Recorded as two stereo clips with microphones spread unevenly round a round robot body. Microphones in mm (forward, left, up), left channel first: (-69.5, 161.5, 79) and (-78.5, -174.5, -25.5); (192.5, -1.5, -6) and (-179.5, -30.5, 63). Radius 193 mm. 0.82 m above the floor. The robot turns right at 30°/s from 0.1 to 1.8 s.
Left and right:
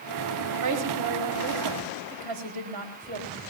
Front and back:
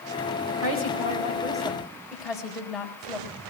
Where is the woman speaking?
125° right, 4.5 m; by 3.4 s 85° right, 4.5 m.